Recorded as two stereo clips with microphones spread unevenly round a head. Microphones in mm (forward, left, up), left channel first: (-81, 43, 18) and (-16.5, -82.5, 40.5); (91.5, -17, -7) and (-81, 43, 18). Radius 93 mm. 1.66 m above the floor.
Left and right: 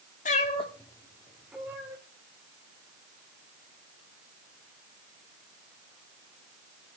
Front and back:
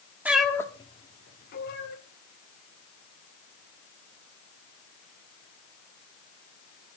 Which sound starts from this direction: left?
A cat meowing, at 0.2 s.